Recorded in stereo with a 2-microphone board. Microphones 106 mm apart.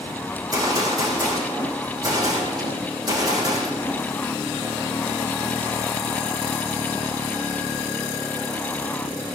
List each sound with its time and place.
0.3 s a gunshot: 40° right (ahead or behind), 7 m